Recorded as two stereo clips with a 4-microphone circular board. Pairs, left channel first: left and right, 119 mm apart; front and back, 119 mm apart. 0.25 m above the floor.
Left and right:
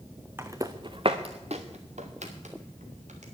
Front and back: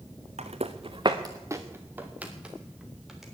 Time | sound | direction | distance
0.4 | footsteps | 160° right | 1.5 m